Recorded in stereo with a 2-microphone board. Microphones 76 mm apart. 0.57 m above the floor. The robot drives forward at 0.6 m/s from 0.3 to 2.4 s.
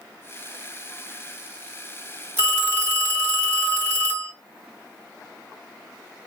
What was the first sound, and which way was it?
A phone ringing, 30° right (ahead or behind).